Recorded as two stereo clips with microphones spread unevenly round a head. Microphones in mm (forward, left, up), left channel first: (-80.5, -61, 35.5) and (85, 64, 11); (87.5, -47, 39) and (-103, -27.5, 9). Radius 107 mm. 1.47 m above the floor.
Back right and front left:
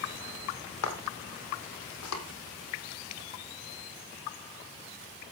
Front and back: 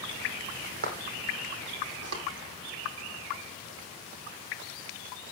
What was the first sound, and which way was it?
Footsteps, 145° right.